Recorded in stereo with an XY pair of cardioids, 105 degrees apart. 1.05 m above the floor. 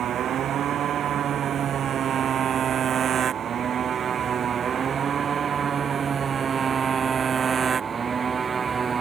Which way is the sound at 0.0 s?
60° right.